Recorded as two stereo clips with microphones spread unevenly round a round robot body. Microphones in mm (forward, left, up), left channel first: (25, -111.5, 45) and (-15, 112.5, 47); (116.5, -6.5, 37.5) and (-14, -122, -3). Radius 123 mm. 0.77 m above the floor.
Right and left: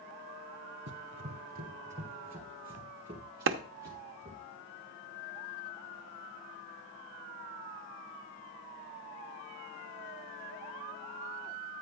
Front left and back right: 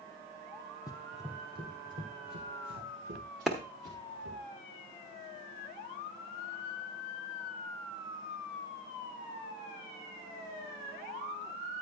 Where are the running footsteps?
90° left, 1.0 m; by 4.4 s straight behind, 4.5 m.